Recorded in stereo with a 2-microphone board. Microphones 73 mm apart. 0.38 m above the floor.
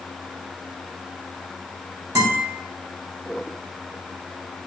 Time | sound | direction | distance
2.1 | a guitar | 50° right (ahead or behind) | 2 m